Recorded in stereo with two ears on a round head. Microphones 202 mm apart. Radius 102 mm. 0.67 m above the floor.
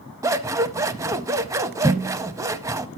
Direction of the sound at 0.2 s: 15° right (ahead or behind).